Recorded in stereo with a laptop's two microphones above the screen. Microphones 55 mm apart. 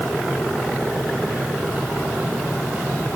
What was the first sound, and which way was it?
Only background noise.